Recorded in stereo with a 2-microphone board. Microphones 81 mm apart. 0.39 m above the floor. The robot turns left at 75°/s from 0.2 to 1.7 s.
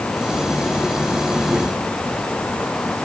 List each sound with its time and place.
Only background noise.